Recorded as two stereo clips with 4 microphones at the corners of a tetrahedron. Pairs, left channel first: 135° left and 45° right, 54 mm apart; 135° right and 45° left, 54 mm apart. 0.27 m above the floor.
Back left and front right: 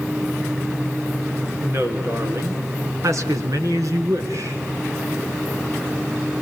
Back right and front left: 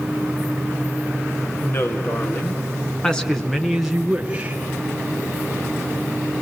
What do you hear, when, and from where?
1.6 s a woman speaking: 100° right, 4 m; by 4.6 s 25° right, 3.5 m